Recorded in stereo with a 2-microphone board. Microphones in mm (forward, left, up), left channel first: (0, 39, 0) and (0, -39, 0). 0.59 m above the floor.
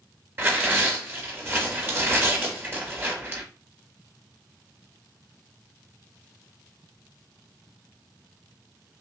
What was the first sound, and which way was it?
Tearing paper, 30° right (ahead or behind).